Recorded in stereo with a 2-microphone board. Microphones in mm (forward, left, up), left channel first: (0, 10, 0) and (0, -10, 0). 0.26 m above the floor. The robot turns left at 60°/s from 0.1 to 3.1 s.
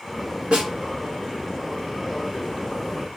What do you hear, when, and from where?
0.5 s a snare drum: 50° right (ahead or behind), 1.3 m; by 0.7 s 40° right (ahead or behind), 1.3 m